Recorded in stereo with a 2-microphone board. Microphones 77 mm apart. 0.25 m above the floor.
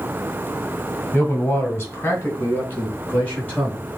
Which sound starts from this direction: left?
A man speaking, at 1.1 s.